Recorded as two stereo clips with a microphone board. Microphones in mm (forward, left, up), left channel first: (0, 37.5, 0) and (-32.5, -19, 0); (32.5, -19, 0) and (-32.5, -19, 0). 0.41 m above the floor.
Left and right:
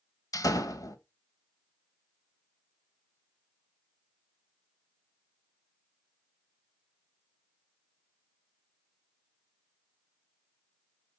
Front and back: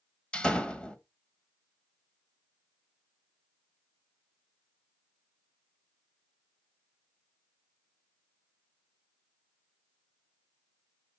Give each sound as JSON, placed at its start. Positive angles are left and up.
{"t": 0.3, "sound": "a door slam", "azimuth_deg": 70, "distance_m": 1.4}